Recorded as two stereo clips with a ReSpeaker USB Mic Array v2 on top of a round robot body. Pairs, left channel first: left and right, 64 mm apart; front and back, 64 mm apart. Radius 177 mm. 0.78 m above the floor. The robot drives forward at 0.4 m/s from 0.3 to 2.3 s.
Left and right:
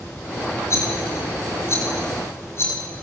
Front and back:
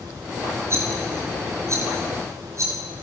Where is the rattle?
135° left, 4.5 m; by 2.8 s 140° left, 5 m.